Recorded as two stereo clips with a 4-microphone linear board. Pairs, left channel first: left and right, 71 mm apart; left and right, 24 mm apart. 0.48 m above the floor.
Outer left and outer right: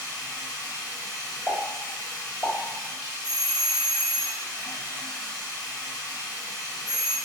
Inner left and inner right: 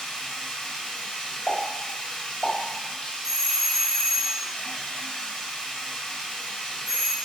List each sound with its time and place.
0.0 s running water: 70° left (ahead or behind), 0.8 m
1.5 s a pop: 35° left (ahead or behind), 1.6 m
3.2 s a doorbell: 15° right (ahead or behind), 1.4 m